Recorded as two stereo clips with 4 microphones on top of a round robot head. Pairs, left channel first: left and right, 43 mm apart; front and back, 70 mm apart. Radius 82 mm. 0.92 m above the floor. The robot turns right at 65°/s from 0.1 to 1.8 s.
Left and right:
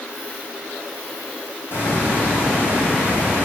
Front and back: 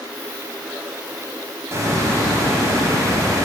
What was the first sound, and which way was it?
A hiss, 125° left.